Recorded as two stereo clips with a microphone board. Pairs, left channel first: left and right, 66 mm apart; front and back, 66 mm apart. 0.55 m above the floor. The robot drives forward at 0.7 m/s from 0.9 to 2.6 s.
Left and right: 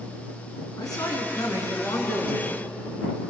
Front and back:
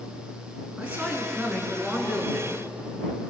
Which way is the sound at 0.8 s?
110° left.